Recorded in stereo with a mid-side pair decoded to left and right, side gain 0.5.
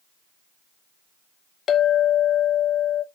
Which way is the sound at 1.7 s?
50° left.